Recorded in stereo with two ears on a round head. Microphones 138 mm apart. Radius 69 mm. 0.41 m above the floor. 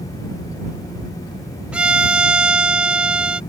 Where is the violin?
5° right (ahead or behind).